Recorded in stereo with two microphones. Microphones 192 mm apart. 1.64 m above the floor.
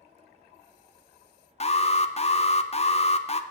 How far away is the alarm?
About 0.5 m.